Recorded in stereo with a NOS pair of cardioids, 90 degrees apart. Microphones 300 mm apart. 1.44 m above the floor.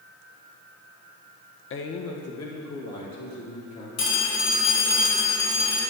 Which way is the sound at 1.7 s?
45° left.